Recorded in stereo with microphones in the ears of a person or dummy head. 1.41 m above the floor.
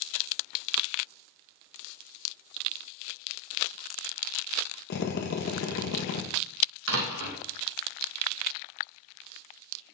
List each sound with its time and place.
4.9 s a drill: 50° left (ahead or behind), 1.3 m
6.9 s a door slam: 80° right, 1.4 m